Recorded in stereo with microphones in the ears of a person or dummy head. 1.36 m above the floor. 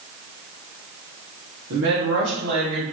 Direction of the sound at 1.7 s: 85° right.